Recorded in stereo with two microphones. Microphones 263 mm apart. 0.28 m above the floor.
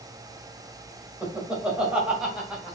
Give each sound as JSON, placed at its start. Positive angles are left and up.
{"t": 1.2, "sound": "laughter", "side_deg": -5, "distance_m": 1.4}